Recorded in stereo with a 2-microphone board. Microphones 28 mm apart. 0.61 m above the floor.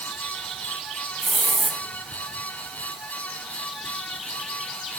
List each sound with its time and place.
1.2 s a hiss: 5° right (ahead or behind), 1.9 m